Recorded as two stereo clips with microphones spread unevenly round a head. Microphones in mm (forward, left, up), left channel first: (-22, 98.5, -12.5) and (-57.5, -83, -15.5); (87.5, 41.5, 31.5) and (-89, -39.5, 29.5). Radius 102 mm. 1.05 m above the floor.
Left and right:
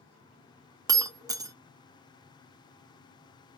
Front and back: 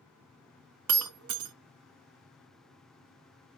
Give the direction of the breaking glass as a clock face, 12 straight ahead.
6 o'clock.